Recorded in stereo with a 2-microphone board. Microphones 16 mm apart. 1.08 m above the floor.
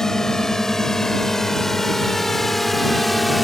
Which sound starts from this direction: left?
A drone, at 0.0 s.